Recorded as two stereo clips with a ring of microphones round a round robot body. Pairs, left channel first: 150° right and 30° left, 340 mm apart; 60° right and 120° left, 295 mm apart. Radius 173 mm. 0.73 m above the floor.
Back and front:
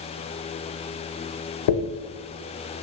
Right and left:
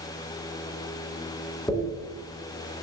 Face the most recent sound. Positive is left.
turn(degrees=-145)